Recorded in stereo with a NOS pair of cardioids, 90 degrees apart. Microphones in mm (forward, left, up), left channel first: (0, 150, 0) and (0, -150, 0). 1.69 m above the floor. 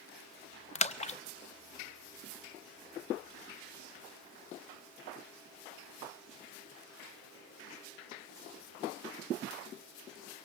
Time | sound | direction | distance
0.8 | a splash | 25° left | 0.7 m